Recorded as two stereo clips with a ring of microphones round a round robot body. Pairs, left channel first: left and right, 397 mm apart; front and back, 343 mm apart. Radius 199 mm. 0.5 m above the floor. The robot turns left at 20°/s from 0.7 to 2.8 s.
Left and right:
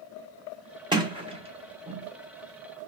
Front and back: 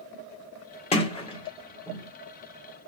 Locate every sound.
0.9 s a sliding door: 35° right, 0.9 m; by 2.1 s 55° right, 0.9 m